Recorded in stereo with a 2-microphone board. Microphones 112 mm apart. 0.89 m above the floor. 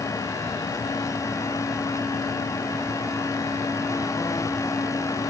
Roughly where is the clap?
I don't hear a clap.